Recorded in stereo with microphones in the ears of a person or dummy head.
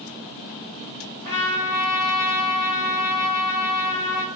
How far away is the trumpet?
About 1.3 m.